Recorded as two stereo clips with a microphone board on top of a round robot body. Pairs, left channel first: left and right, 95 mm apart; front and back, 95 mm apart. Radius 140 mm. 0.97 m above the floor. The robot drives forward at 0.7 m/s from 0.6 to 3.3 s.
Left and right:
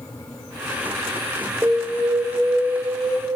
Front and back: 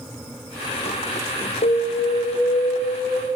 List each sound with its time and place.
1.6 s an alarm: 15° right, 4 m; by 3.3 s 25° right, 3 m